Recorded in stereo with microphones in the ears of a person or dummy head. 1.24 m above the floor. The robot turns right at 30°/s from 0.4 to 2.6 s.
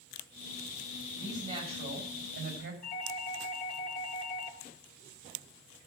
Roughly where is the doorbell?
Left.